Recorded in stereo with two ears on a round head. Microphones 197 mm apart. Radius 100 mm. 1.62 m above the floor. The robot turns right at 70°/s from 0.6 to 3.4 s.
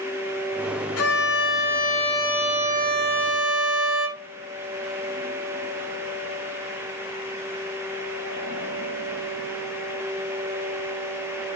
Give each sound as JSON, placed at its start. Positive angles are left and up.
{"t": 1.0, "sound": "a violin", "azimuth_deg": 80, "distance_m": 2.5}